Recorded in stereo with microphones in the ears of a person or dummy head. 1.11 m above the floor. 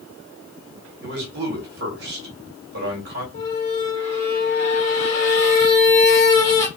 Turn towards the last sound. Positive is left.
turn(degrees=35)  # may be behind; listen again after turning